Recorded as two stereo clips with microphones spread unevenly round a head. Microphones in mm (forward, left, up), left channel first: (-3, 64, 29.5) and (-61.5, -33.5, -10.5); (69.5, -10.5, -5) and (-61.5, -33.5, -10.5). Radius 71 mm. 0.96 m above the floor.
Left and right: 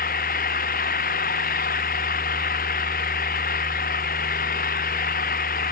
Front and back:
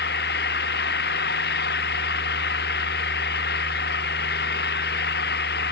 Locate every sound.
0.0 s an engine running: 30° left